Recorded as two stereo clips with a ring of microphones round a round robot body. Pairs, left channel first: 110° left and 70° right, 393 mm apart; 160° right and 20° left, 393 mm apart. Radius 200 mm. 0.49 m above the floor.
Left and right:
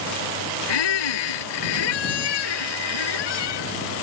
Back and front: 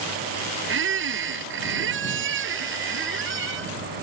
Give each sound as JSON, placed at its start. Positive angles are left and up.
{"t": 0.7, "sound": "a squeak", "azimuth_deg": 85}